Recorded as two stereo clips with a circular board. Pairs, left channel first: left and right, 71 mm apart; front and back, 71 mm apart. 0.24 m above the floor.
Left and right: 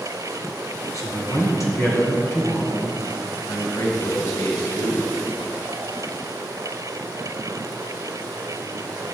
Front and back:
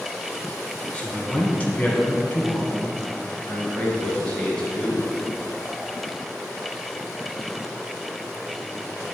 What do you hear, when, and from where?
0.9 s a man speaking: 70° left, 2.5 m; by 3.0 s 40° left, 2 m
3.5 s a man speaking: 75° left, 2.5 m